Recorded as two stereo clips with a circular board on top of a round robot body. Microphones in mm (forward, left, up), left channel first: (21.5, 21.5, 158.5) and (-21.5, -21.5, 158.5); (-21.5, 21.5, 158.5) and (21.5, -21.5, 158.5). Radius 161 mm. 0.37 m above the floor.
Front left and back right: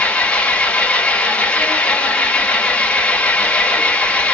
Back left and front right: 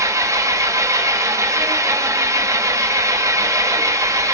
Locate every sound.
0.0 s an engine running: 25° right, 0.7 m